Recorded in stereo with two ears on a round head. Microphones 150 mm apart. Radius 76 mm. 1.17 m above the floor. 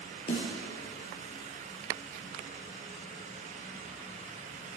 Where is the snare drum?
35° left (ahead or behind), 4.5 m.